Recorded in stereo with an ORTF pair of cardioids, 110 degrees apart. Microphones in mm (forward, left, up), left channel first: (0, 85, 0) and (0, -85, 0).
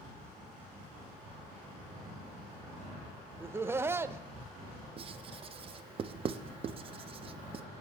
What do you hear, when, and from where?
3.4 s laughter: 15° right, 0.6 m
5.0 s writing: 35° right, 0.5 m